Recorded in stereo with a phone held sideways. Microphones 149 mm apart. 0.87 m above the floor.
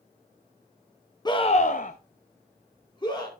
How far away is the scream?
About 0.8 m.